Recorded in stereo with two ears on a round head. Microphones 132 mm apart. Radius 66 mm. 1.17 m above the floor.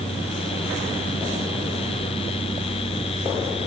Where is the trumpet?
No trumpet in this recording.